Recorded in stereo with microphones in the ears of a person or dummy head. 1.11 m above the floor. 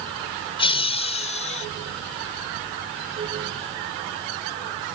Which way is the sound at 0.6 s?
35° left (ahead or behind).